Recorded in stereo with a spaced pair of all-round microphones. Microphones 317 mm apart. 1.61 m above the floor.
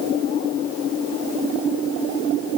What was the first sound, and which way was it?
Only background noise.